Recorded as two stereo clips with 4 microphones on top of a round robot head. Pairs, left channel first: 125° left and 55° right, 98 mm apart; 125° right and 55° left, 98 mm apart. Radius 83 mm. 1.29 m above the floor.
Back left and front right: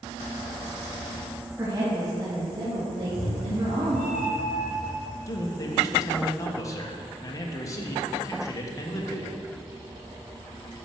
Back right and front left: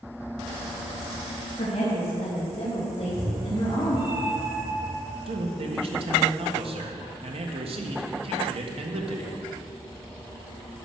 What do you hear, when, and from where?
1.6 s a woman speaking: 115° right, 2.5 m; by 4.0 s 75° right, 2.5 m
3.0 s a cat meowing: 120° left, 1.6 m
5.3 s a man speaking: 65° left, 1.3 m